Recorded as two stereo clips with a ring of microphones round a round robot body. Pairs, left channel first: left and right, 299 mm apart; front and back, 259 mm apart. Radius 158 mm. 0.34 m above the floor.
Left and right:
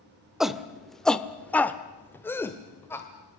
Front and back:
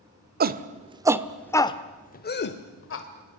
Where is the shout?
Straight behind, 1.0 m; by 3.1 s 10° left, 1.4 m.